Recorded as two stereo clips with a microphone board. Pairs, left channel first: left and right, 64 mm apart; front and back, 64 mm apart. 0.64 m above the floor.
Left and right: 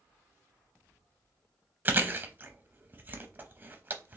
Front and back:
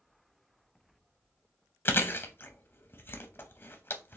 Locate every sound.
1.9 s chewing: 40° right, 0.6 m